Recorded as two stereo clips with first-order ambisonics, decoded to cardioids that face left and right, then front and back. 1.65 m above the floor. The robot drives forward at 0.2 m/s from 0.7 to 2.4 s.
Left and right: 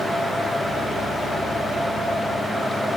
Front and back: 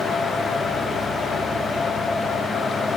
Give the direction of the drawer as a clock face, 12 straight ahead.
No drawer in this recording.